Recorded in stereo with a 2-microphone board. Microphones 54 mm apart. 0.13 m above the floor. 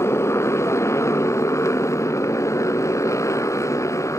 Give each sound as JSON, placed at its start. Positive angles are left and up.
{"t": 0.0, "sound": "a motorcycle", "side_deg": 65}